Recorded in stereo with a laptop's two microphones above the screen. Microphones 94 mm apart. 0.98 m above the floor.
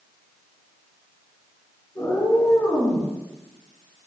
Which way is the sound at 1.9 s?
40° left (ahead or behind).